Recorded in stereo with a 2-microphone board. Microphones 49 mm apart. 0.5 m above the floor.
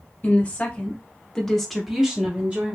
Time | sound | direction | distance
0.2 | a woman speaking | 35° left (ahead or behind) | 1.2 m